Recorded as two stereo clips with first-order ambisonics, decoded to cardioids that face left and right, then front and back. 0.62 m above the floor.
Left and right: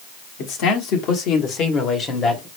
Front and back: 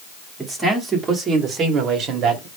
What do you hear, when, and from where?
0.4 s a man speaking: 100° left, 1.4 m; by 2.5 s 160° left, 1.1 m